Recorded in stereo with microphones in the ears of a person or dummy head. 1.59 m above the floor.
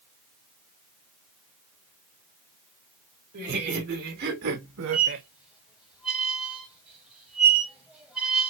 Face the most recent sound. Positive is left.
turn(degrees=-5)  # may be behind; listen again after turning